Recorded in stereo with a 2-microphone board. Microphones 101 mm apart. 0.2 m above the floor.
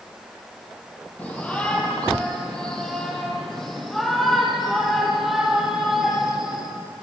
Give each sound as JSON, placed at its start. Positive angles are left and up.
{"t": 1.2, "sound": "a shout", "side_deg": 15, "distance_m": 7.5}